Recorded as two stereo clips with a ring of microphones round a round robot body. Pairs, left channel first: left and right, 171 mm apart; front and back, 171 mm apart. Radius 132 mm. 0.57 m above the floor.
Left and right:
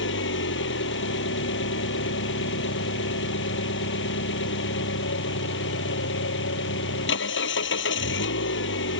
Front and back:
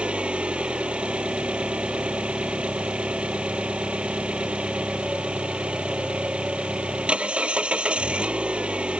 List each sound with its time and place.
0.0 s an engine running: 95° left